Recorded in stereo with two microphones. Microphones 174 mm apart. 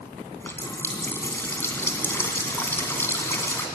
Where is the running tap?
15° left (ahead or behind), 2 m.